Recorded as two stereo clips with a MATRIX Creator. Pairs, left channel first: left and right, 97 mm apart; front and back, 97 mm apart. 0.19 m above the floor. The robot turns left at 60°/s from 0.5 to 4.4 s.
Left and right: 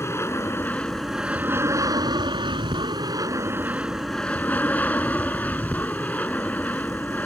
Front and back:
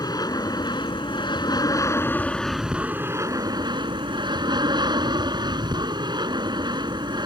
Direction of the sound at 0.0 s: 35° left.